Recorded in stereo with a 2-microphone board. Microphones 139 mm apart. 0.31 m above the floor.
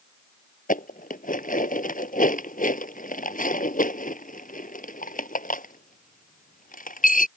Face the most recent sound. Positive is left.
turn(degrees=80)